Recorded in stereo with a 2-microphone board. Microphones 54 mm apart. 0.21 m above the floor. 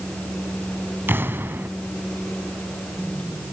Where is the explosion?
40° right (ahead or behind), 1.5 m.